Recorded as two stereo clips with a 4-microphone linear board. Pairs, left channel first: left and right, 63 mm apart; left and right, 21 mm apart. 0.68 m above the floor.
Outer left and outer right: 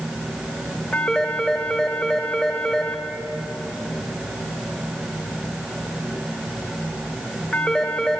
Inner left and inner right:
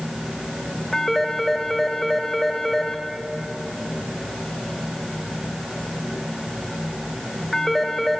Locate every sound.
0.9 s a phone ringing: 5° left (ahead or behind), 2.5 m